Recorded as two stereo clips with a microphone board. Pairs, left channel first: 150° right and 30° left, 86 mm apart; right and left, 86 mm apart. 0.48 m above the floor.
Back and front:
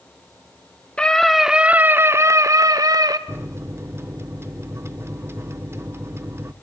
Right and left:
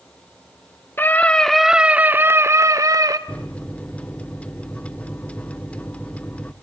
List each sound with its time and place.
1.0 s a scream: 90° right, 1.1 m; by 3.2 s 60° left, 1.9 m
3.3 s a microwave: 20° right, 0.8 m